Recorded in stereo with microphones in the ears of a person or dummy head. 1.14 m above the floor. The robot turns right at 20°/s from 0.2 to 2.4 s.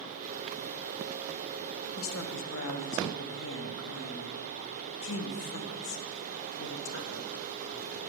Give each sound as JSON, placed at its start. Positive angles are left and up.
{"t": 2.0, "sound": "a woman speaking", "side_deg": 80, "distance_m": 0.7}